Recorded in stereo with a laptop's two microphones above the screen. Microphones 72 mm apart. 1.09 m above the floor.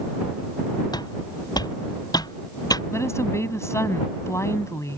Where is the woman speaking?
40° left (ahead or behind).